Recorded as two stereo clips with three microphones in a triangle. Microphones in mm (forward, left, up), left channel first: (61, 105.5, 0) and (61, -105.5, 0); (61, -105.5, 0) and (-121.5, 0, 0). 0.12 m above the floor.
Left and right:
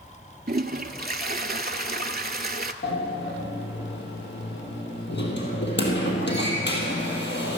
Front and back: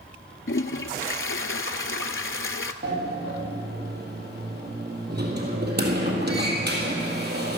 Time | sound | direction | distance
0.5 | a toilet flushing | 45° right | 0.5 m
2.8 | a sliding door | 115° left | 1.9 m